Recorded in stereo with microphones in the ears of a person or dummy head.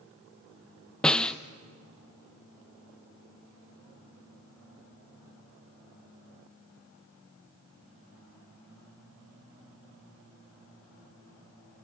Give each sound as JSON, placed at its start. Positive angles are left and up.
{"t": 1.0, "sound": "a snare drum", "side_deg": 5, "distance_m": 0.8}